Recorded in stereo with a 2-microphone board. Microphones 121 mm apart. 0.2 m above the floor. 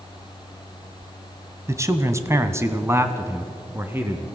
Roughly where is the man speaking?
Right.